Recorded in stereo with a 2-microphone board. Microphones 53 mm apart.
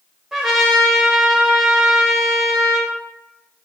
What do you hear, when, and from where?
0.3 s a trumpet: 10° right (ahead or behind), 0.7 m